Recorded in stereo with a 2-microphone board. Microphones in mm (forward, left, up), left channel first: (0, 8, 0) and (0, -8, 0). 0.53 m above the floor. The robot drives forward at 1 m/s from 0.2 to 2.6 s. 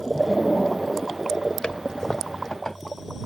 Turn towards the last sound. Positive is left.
turn(degrees=40)  # may be behind; listen again after turning